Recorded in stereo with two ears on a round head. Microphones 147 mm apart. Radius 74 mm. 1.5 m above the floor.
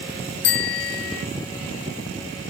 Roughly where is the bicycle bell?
Left.